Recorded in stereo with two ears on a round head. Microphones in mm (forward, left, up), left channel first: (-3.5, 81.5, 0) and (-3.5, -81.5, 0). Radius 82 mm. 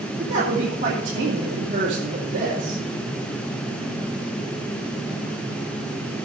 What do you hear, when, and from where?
0.2 s a woman speaking: 40° right (ahead or behind), 3 m